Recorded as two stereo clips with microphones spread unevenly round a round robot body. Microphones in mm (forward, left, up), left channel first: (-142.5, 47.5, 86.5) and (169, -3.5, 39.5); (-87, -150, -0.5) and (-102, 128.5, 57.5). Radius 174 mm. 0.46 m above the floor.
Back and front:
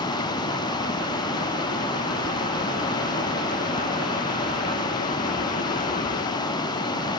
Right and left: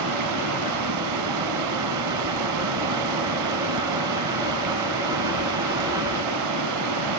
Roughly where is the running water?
Left.